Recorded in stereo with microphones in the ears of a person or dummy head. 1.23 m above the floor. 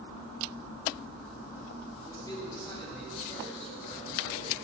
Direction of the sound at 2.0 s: 15° left (ahead or behind).